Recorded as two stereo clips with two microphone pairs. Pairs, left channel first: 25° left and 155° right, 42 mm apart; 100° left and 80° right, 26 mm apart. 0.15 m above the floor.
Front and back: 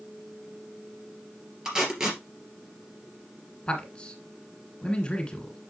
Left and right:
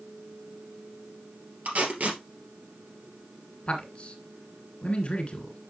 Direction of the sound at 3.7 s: 75° left.